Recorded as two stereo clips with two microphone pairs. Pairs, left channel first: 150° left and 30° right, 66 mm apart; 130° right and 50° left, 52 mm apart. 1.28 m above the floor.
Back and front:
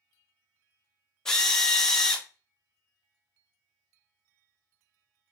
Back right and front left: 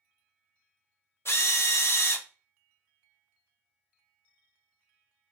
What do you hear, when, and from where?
1.2 s a drill: 130° right, 0.6 m